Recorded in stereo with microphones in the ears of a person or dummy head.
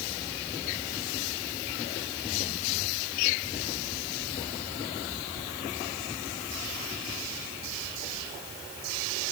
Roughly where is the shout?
No shout in this recording.